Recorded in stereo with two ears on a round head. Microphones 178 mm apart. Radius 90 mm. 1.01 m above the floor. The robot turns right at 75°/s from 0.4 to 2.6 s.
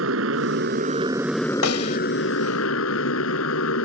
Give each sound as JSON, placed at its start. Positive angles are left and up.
{"t": 0.0, "sound": "a motorcycle", "azimuth_deg": -75}
{"t": 1.6, "sound": "a snare drum", "side_deg": 75}